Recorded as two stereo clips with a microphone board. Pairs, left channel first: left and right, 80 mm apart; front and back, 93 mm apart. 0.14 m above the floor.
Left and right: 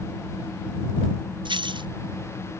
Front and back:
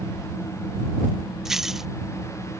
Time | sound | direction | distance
1.4 | keys jangling | 95° right | ?